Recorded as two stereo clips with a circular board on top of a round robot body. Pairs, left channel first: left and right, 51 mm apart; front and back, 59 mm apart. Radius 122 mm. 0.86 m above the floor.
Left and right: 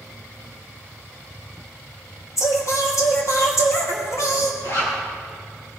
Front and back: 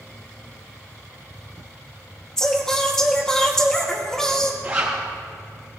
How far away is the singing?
About 2.5 m.